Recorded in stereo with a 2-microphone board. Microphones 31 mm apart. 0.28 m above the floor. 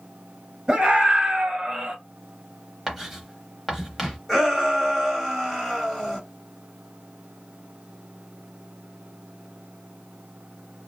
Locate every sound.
0.7 s a scream: 25° right (ahead or behind), 1.9 m; by 1.9 s 35° right (ahead or behind), 1.8 m
2.9 s writing: 10° right (ahead or behind), 0.9 m
4.3 s a shout: 10° left (ahead or behind), 1.6 m